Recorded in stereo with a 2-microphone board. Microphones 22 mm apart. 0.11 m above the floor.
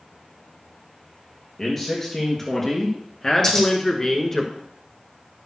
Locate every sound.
1.6 s a man speaking: 15° left (ahead or behind), 2.5 m
3.4 s scissors: 20° left (ahead or behind), 5.5 m